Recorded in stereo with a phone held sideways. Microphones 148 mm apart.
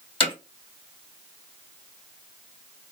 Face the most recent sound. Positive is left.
turn(degrees=40)  # may be behind; listen again after turning